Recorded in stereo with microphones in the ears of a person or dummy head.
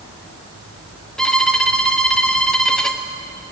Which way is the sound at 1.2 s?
10° left (ahead or behind).